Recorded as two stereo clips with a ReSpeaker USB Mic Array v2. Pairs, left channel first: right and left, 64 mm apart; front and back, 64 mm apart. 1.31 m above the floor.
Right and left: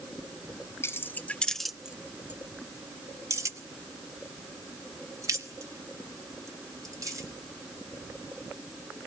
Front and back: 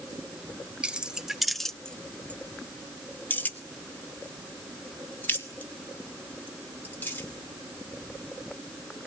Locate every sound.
0.8 s keys jangling: 115° right, 0.6 m; by 7.3 s 60° left, 3 m